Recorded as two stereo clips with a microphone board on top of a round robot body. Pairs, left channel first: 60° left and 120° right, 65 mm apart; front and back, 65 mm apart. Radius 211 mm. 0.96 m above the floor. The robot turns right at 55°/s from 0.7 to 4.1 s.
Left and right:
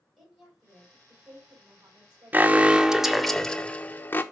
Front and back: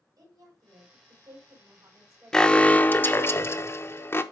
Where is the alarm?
75° right, 1.0 m; by 4.2 s 20° left, 1.0 m.